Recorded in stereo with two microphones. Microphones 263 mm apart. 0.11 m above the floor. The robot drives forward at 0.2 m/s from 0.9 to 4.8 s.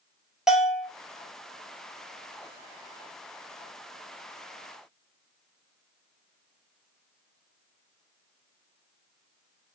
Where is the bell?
Centre (ahead or behind), 0.7 m.